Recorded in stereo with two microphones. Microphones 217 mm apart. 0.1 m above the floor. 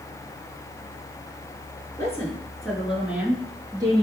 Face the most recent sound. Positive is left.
turn(degrees=-20)  # may be behind; listen again after turning